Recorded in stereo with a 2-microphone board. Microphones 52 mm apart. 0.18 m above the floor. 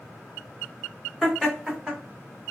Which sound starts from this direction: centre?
Laughter, at 1.2 s.